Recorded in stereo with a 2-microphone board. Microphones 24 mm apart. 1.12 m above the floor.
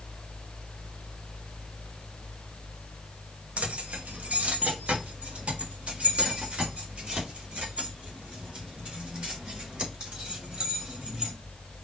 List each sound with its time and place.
3.6 s keys jangling: 75° right (ahead or behind), 1.0 m; by 11.3 s 45° right (ahead or behind), 4.5 m